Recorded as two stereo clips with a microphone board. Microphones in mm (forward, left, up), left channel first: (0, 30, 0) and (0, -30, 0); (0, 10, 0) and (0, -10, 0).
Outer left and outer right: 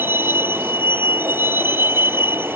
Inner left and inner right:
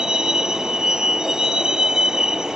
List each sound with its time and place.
0.0 s a vehicle: 40° right (ahead or behind)